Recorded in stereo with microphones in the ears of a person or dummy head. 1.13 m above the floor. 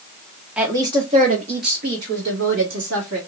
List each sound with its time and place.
0.6 s a woman speaking: centre (ahead or behind), 0.8 m; by 3.2 s 70° right (ahead or behind), 1.9 m